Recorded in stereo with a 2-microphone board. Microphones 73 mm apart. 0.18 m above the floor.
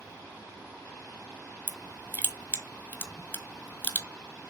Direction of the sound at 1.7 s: 25° left (ahead or behind).